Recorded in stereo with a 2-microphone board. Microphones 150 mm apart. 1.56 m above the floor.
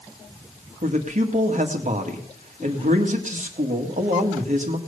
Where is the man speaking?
55° right (ahead or behind), 1.9 m.